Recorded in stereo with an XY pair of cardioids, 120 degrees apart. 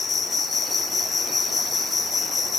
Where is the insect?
30° left, 0.7 m.